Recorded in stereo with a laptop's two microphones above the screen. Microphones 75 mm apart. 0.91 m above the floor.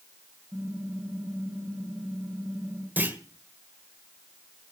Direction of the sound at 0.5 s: 10° right (ahead or behind).